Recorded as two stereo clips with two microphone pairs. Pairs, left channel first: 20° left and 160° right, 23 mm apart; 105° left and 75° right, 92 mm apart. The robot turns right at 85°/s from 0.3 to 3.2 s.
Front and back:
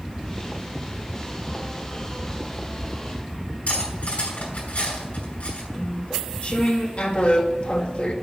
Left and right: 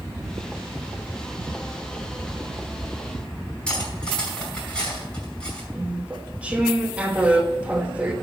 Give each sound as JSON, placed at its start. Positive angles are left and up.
{"t": 3.7, "sound": "cutlery clinking", "azimuth_deg": 25, "distance_m": 5.0}
{"t": 5.7, "sound": "chewing", "azimuth_deg": -5, "distance_m": 1.2}